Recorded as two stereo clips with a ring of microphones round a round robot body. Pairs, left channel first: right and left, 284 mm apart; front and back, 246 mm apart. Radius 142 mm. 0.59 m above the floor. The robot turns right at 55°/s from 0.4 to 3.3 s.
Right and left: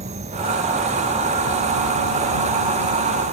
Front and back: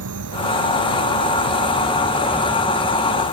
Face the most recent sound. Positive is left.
turn(degrees=-40)